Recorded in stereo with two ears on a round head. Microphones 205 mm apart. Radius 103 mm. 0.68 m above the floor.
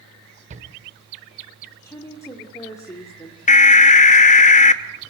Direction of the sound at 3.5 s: 35° left (ahead or behind).